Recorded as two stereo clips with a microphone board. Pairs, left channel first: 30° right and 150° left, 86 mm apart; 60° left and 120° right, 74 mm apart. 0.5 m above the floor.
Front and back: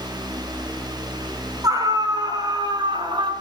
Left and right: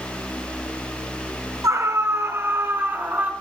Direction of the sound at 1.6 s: 165° right.